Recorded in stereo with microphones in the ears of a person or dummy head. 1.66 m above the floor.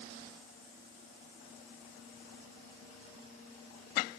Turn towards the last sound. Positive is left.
No sound to turn to.